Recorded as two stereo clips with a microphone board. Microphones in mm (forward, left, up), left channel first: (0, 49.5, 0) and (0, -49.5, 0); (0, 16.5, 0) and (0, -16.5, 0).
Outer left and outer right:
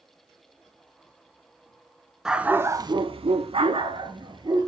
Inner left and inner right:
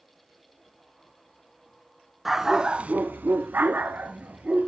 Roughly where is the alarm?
I don't hear an alarm.